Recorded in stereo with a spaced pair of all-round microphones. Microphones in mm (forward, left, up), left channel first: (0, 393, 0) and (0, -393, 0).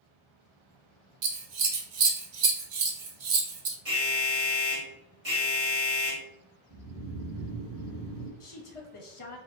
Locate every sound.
1.2 s scissors: 60° right (ahead or behind), 0.6 m
3.9 s an alarm: 65° right (ahead or behind), 1.7 m
6.7 s snoring: 10° right (ahead or behind), 1.2 m
8.4 s a woman speaking: 45° left (ahead or behind), 0.7 m